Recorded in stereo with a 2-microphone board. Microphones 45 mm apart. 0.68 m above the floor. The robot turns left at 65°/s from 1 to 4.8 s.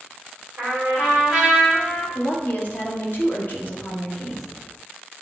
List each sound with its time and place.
0.6 s a trumpet: 145° right, 3 m; by 2.0 s 145° left, 3 m
2.1 s a woman speaking: 145° left, 1.3 m; by 4.5 s 5° right, 1.3 m